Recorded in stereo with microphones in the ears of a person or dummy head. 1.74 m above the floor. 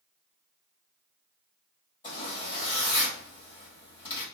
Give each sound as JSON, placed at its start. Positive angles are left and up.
{"t": 2.0, "sound": "a zipper", "side_deg": 30, "distance_m": 1.9}